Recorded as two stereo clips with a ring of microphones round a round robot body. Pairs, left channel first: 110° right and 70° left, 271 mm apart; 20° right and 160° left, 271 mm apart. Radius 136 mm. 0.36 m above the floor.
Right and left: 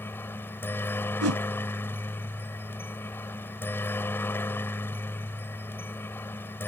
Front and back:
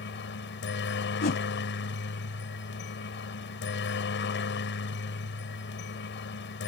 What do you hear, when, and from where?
0.0 s a helicopter: 35° right
1.2 s a whoosh: 35° left